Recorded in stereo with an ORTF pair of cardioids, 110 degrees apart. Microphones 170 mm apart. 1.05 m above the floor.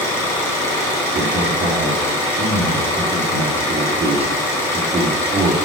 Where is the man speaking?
35° right, 2 m.